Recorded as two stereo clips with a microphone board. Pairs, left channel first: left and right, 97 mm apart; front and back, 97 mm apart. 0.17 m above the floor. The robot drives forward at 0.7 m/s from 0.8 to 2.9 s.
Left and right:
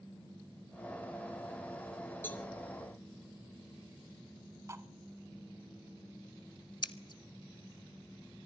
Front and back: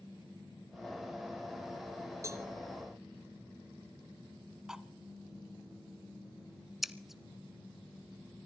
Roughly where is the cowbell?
Behind left.